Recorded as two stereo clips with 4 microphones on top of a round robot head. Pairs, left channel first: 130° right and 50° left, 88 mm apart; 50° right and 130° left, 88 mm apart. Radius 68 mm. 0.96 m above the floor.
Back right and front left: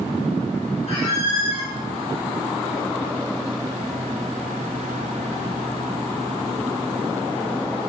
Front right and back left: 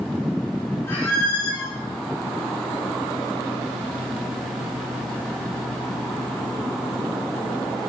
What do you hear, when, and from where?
0.9 s a squeak: 120° right, 3 m